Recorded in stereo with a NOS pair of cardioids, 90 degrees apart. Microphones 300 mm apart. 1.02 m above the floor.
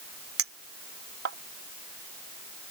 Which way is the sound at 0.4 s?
50° right.